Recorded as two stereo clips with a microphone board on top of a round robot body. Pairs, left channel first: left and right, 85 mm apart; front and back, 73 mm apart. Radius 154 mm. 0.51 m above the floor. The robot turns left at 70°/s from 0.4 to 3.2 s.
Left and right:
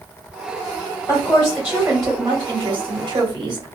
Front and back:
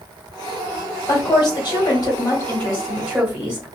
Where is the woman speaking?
35° left, 1.7 m; by 3.6 s 115° right, 1.7 m.